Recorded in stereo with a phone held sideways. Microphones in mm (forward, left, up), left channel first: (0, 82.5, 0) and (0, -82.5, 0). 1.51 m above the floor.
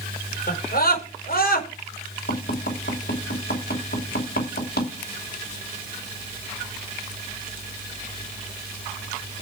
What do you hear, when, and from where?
0.5 s a scream: 65° left (ahead or behind), 5 m
2.3 s tapping: 80° left, 5 m